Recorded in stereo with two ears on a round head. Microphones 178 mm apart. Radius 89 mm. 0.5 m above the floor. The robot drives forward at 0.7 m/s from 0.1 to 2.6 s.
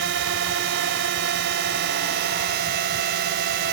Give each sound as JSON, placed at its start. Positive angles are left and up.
{"t": 0.0, "sound": "a drone", "side_deg": -65}